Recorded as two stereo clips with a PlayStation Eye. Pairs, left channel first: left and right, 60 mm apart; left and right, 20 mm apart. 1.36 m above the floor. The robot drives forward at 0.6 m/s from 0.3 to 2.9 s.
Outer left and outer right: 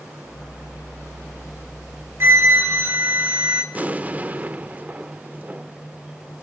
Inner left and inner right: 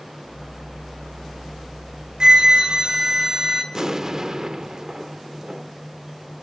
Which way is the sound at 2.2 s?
45° right (ahead or behind).